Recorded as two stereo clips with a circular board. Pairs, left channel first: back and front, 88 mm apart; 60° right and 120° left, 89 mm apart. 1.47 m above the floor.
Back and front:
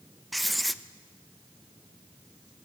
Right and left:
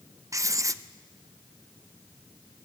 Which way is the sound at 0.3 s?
90° left.